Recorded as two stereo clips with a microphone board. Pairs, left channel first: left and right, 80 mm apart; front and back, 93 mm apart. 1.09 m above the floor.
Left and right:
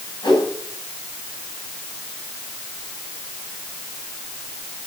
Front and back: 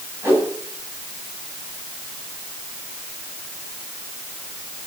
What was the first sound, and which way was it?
A whoosh, 115° left.